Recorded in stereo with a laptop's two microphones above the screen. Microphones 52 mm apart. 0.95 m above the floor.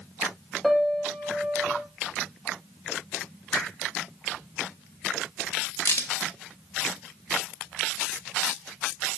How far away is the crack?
About 0.7 m.